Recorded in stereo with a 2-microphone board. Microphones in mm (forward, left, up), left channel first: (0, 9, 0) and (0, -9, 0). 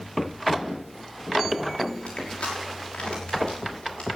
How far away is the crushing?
About 6 m.